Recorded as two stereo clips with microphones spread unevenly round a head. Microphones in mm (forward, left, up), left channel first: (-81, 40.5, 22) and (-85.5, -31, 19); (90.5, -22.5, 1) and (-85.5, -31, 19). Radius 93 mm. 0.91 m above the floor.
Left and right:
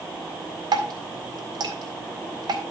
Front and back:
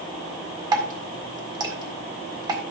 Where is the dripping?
110° right, 2 m.